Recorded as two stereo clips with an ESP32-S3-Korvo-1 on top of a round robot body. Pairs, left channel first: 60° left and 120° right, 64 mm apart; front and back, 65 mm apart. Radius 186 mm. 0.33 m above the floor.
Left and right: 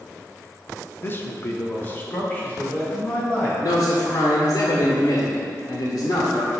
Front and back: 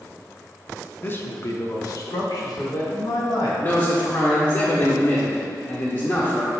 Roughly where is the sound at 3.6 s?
Ahead left.